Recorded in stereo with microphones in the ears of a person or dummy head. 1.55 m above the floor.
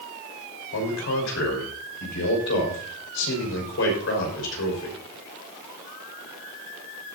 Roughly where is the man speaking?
Left.